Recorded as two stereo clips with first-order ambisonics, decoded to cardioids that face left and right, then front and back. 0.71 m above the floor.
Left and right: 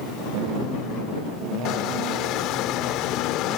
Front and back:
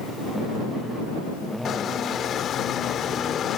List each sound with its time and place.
1.6 s a squeak: 55° left